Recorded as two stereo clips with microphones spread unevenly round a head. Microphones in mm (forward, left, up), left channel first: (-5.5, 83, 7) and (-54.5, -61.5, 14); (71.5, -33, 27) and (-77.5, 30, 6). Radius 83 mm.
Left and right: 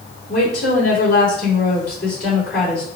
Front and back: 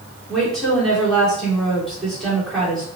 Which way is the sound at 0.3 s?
65° left.